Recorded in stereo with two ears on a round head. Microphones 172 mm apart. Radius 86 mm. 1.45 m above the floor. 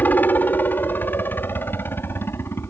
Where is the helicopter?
10° left (ahead or behind).